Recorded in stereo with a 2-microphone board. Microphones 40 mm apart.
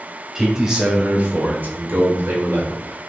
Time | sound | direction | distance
0.3 | a man speaking | 10° right (ahead or behind) | 1.6 m